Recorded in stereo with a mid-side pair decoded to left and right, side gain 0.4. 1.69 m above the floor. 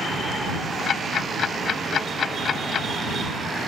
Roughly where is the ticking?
Ahead left.